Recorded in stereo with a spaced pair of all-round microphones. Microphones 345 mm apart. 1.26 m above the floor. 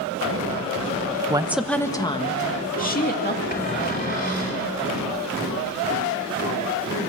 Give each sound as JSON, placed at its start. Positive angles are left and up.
{"t": 1.3, "sound": "a woman speaking", "side_deg": -15, "distance_m": 0.9}
{"t": 3.5, "sound": "a cupboard door", "side_deg": 25, "distance_m": 3.5}